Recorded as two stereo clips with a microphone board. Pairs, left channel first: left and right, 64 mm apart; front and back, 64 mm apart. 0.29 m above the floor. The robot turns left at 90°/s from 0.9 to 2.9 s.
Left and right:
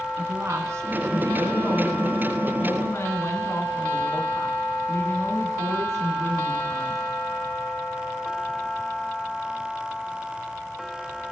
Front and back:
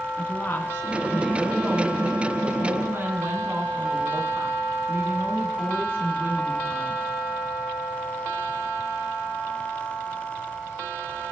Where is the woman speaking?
50° right, 2.5 m; by 7.1 s 130° left, 2.5 m.